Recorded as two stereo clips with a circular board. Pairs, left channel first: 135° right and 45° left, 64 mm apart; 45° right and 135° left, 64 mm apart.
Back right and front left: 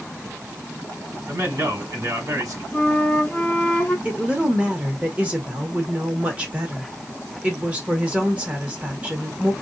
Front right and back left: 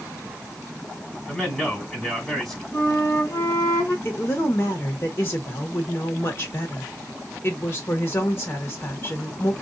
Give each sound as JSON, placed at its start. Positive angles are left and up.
{"t": 1.3, "sound": "a man speaking", "azimuth_deg": 35, "distance_m": 1.3}
{"t": 2.7, "sound": "a flute", "azimuth_deg": -75, "distance_m": 1.9}
{"t": 4.0, "sound": "a woman speaking", "azimuth_deg": -15, "distance_m": 1.4}